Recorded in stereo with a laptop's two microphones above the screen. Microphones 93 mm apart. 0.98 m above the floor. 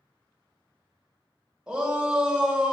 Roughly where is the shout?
Centre.